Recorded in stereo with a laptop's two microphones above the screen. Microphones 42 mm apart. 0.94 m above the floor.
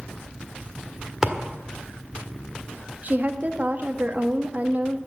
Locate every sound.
1.2 s a thud: 15° right (ahead or behind), 1.4 m
3.0 s a woman speaking: 40° right (ahead or behind), 1.2 m